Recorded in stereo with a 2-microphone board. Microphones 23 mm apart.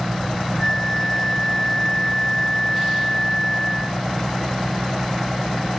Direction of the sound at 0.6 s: 15° left (ahead or behind).